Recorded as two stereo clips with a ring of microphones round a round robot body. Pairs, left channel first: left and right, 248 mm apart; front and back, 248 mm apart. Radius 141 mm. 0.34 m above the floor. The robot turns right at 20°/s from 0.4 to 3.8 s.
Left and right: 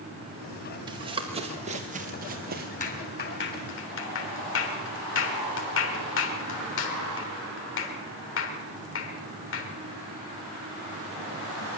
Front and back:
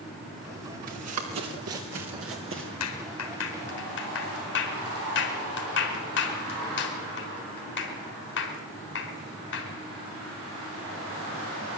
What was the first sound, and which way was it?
Running footsteps, 160° right.